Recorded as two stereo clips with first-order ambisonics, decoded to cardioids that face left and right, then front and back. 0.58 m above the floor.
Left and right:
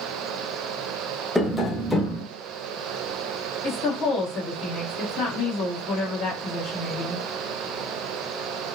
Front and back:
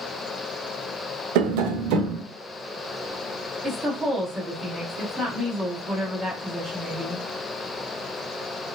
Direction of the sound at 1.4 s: 175° left.